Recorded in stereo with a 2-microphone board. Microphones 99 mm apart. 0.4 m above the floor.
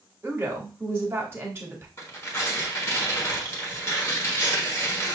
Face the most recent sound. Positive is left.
turn(degrees=25)  # may be behind; listen again after turning